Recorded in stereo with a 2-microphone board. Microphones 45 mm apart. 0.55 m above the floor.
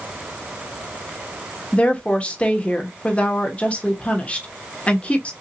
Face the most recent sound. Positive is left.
turn(degrees=25)  # may be behind; listen again after turning